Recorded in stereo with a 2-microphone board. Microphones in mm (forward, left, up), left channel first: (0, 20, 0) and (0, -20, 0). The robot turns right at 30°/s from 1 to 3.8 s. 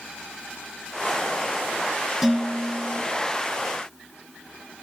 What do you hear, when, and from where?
2.2 s dishes clattering: 10° right (ahead or behind), 1.9 m; by 3.0 s 30° right (ahead or behind), 1.9 m